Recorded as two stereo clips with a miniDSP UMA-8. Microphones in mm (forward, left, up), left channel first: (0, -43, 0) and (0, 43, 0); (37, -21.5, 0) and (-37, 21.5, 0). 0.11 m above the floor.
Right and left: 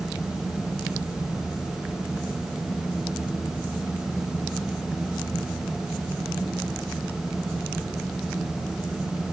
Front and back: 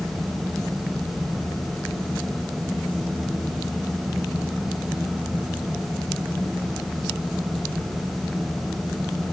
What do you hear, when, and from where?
Only background noise.